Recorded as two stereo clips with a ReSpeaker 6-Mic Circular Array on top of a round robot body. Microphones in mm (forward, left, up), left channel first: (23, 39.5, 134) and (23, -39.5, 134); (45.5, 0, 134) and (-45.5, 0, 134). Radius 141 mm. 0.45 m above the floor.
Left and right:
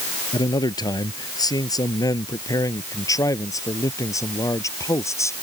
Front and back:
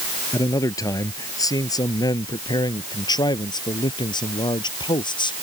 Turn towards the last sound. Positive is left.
turn(degrees=35)